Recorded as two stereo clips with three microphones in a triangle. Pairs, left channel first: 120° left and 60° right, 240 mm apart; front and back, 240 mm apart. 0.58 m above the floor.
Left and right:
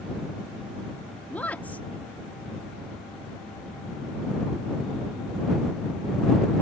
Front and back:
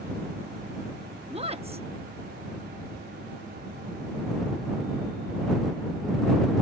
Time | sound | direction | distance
1.3 | a woman speaking | 165° right | ?